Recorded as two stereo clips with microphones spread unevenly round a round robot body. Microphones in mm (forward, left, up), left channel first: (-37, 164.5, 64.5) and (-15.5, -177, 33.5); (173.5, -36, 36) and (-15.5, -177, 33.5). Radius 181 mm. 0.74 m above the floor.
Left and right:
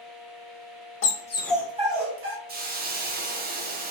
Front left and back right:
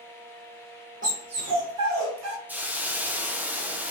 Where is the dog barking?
150° left, 1.0 m; by 2.4 s 140° right, 1.6 m.